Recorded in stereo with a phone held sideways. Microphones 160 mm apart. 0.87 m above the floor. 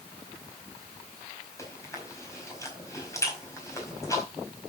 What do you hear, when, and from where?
1.6 s chewing: 20° left (ahead or behind), 4.5 m